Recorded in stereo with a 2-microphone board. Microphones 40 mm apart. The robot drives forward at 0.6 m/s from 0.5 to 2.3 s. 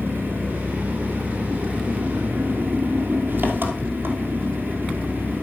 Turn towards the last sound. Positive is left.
turn(degrees=-55)  # may be behind; listen again after turning